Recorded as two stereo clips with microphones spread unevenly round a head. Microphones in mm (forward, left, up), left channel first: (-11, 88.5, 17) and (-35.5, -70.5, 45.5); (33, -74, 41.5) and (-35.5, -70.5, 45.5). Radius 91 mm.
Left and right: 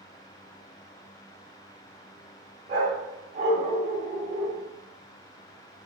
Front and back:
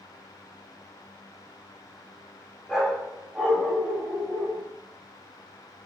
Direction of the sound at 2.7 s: 95° right.